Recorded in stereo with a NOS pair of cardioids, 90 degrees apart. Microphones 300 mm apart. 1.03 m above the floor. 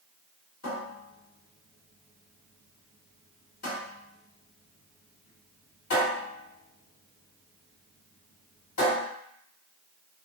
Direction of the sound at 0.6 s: 55° left.